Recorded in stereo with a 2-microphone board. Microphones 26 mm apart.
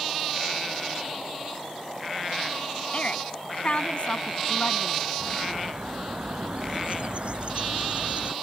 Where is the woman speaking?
45° left (ahead or behind).